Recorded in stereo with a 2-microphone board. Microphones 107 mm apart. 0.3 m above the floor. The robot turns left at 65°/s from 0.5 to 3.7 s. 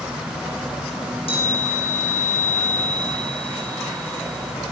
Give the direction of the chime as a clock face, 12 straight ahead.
7 o'clock.